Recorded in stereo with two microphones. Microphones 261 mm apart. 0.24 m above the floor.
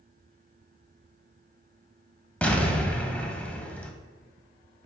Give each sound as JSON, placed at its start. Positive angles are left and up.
{"t": 2.4, "sound": "an explosion", "side_deg": 5, "distance_m": 0.6}